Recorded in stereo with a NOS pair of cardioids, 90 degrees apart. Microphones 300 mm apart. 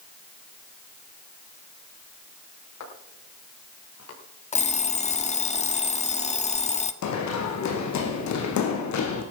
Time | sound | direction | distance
2.8 | footsteps | 60° left | 9 m
4.5 | an alarm clock | 20° left | 1.4 m
7.0 | running footsteps | 65° left | 4.5 m